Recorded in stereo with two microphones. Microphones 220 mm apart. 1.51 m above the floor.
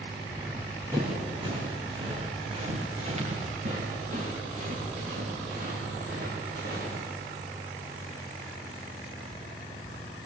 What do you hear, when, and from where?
0.3 s running footsteps: 10° right (ahead or behind), 4.5 m; by 7.0 s 45° right (ahead or behind), 7 m